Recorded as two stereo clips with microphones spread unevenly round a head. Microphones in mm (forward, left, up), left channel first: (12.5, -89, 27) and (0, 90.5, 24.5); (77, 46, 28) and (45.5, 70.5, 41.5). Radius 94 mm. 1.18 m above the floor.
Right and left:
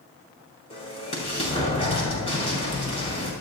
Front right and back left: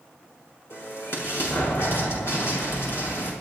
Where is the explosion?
25° right, 6 m.